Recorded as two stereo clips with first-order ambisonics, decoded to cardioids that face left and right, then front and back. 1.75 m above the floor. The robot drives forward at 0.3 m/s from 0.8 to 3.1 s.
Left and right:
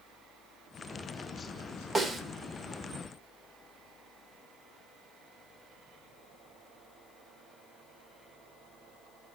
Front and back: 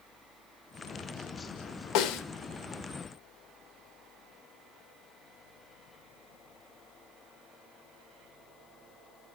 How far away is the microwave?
I don't hear a microwave.